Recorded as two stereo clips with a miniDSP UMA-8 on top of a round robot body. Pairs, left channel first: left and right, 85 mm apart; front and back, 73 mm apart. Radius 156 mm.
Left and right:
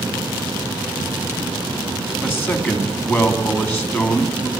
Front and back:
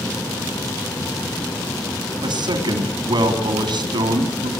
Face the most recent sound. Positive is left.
turn(degrees=160)